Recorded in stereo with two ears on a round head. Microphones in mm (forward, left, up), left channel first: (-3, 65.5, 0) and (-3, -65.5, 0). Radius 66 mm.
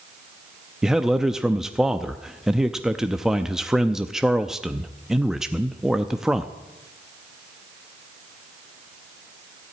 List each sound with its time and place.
0.8 s a man speaking: 5° right (ahead or behind), 0.5 m